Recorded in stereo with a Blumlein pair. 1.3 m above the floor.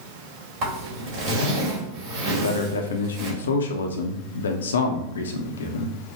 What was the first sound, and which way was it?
A zipper, 40° right.